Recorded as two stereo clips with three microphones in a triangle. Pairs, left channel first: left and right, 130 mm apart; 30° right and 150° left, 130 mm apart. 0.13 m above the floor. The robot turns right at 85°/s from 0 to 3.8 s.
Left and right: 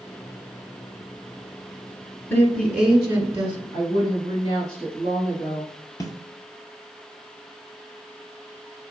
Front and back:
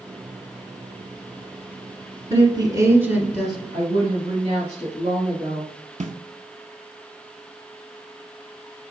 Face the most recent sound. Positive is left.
turn(degrees=150)